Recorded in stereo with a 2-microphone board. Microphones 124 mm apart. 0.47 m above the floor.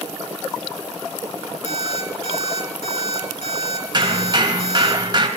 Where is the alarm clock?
60° left (ahead or behind), 4 m.